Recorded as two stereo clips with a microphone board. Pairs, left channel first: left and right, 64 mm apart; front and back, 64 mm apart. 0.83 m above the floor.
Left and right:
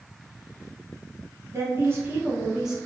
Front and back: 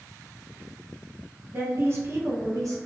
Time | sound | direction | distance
1.5 | a woman speaking | 130° right | 1.3 m